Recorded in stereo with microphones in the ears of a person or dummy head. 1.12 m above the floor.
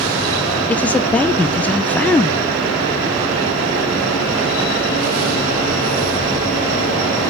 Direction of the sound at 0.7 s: 5° left (ahead or behind).